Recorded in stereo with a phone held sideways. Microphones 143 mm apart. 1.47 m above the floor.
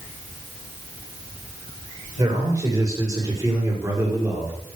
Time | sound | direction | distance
2.2 | a man speaking | 25° right (ahead or behind) | 6.5 m